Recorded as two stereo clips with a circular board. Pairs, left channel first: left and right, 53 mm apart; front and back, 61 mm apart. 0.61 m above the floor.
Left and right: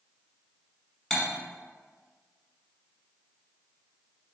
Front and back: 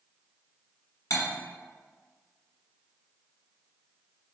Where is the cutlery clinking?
10° left, 1.1 m.